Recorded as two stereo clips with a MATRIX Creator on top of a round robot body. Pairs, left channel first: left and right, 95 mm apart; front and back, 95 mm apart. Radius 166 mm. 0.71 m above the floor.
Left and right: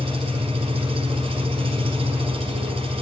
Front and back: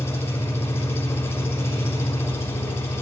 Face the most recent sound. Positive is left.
turn(degrees=-70)